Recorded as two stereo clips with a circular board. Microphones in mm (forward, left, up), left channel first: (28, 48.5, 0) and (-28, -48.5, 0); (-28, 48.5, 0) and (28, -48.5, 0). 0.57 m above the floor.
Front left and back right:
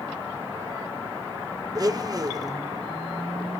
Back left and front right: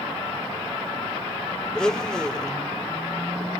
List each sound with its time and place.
1.8 s a blender: 160° right, 0.9 m